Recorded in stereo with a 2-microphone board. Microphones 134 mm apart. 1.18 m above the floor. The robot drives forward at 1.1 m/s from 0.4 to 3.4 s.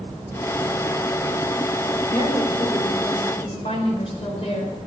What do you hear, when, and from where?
2.1 s a woman speaking: 65° left (ahead or behind), 4 m; by 4.8 s 50° left (ahead or behind), 5 m